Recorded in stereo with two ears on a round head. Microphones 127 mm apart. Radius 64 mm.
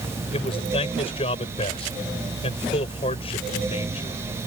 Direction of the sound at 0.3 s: 40° left (ahead or behind).